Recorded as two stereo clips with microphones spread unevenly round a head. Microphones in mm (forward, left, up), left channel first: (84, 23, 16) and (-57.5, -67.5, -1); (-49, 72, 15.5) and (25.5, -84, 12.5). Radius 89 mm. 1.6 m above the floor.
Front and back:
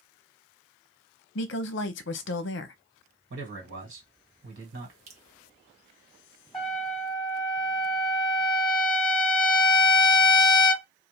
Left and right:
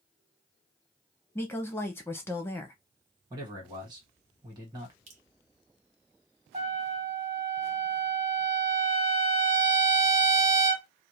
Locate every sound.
1.4 s a woman speaking: 40° left, 0.6 m
3.3 s a man speaking: 125° right, 1.6 m
5.1 s dripping: 105° right, 0.9 m
6.5 s a trumpet: 45° right, 1.6 m